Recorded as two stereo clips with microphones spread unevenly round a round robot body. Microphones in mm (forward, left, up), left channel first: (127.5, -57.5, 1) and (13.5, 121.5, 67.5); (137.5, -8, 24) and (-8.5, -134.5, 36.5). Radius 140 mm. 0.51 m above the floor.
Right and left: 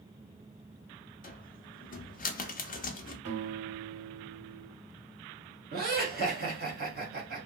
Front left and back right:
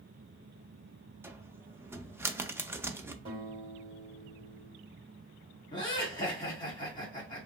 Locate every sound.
1.2 s a cupboard door: 60° right, 0.5 m
3.2 s a guitar: 155° left, 1.8 m
5.7 s laughter: 85° left, 1.4 m